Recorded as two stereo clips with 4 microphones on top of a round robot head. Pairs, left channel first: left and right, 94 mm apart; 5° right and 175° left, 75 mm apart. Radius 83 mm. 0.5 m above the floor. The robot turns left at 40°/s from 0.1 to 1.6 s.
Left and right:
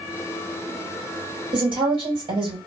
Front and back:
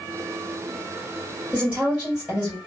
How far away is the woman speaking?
About 3 m.